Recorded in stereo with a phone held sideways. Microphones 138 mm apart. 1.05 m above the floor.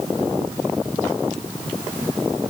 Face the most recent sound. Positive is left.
No sound to turn to.